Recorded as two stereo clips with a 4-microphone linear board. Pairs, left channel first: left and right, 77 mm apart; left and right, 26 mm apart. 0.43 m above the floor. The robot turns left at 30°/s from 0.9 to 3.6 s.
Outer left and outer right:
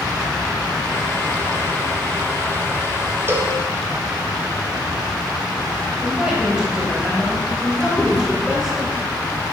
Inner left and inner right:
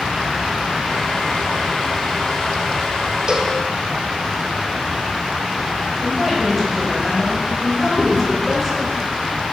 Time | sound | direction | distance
3.3 | a cowbell | 35° right (ahead or behind) | 0.8 m
6.0 | a woman speaking | 10° right (ahead or behind) | 2.5 m
8.0 | chewing | 25° right (ahead or behind) | 1.8 m